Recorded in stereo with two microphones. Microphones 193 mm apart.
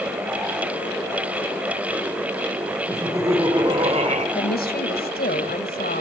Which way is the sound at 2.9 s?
10° right (ahead or behind).